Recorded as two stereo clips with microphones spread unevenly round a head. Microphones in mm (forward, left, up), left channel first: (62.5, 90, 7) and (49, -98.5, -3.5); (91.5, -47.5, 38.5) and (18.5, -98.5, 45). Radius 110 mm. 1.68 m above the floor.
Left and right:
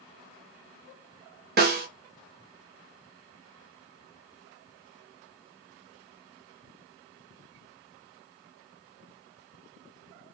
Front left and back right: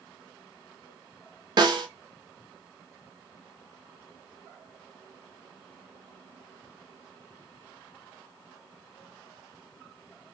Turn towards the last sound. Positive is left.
turn(degrees=-130)